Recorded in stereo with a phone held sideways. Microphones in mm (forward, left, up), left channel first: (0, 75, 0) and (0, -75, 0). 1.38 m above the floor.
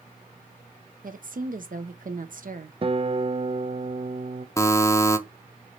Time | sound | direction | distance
1.0 | a woman speaking | 65° right (ahead or behind) | 1.0 m
2.8 | a guitar | 40° right (ahead or behind) | 0.5 m
4.6 | a buzzer | 20° left (ahead or behind) | 0.8 m